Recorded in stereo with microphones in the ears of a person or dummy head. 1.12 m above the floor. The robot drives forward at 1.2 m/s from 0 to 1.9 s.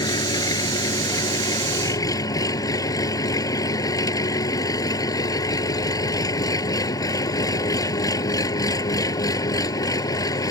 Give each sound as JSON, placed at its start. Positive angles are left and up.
{"t": 0.0, "sound": "an engine running", "side_deg": 25}